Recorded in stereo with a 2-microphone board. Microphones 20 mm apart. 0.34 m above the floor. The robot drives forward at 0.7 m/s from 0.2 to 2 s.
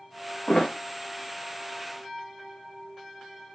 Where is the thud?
65° left (ahead or behind), 2 m; by 0.7 s 60° left (ahead or behind), 2.5 m.